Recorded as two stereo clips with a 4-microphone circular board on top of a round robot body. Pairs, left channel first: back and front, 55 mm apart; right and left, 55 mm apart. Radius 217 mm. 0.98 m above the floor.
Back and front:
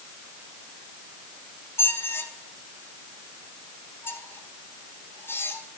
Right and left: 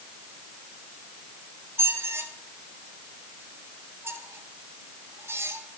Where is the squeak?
130° left, 1.6 m.